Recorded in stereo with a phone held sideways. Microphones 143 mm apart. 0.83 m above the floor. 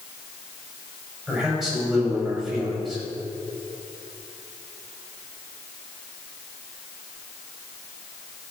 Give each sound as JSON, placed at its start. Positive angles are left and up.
{"t": 1.3, "sound": "a man speaking", "side_deg": 0, "distance_m": 5.0}